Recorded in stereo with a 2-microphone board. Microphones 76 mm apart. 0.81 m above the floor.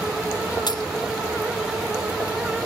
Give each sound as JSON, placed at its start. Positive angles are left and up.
{"t": 0.7, "sound": "a dropped coin", "side_deg": 70}